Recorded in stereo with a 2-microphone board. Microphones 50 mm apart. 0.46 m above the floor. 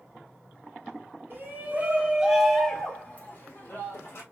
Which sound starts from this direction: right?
A shout, at 1.3 s.